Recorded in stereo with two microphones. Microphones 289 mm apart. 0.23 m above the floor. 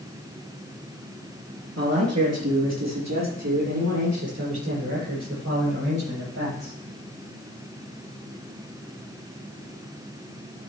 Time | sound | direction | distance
1.8 | a man speaking | 70° right (ahead or behind) | 4 m